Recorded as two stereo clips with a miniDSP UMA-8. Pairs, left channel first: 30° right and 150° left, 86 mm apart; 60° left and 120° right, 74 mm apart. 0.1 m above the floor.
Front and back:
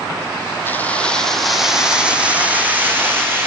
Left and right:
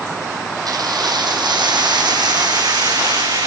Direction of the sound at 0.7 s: 95° right.